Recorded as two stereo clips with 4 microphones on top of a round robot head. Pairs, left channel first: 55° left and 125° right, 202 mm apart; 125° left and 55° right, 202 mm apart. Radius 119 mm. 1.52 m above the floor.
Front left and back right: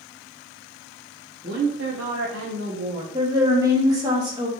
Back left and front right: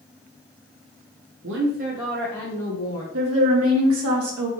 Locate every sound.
1.4 s a woman speaking: 80° right, 0.9 m; by 3.0 s 170° left, 1.2 m
3.1 s a woman speaking: 55° right, 1.4 m